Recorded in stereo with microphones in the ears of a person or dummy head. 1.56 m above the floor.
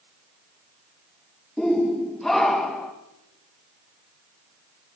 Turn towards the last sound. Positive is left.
turn(degrees=5)  # may be behind; listen again after turning